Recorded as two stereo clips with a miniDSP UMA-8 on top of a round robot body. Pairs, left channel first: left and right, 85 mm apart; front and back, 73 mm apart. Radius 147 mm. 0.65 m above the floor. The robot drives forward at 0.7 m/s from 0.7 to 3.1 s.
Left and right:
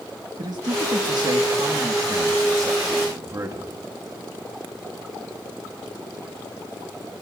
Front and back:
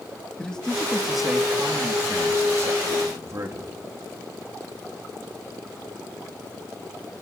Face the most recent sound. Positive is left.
turn(degrees=-140)